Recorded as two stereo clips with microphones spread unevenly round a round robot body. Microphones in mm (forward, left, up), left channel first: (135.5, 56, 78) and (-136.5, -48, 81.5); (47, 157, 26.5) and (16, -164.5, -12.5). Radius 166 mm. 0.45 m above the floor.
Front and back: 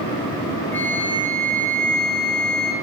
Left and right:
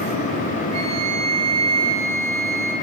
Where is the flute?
60° right, 1.5 m.